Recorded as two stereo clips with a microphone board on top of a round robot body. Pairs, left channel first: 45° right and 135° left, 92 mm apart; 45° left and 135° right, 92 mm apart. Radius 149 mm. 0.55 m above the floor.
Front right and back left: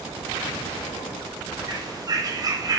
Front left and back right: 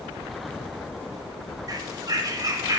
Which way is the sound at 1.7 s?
175° left.